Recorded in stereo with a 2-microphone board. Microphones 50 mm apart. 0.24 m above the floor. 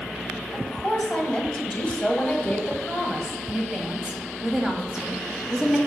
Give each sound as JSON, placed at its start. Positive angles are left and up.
{"t": 0.5, "sound": "a woman speaking", "side_deg": 20, "distance_m": 1.3}
{"t": 3.5, "sound": "a woman speaking", "side_deg": -15, "distance_m": 1.2}